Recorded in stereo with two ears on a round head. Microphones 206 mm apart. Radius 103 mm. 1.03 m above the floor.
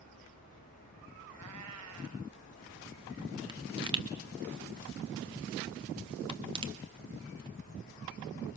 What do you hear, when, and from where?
1.3 s a cat meowing: 70° right (ahead or behind), 2 m
3.5 s a pop: 20° right (ahead or behind), 1.9 m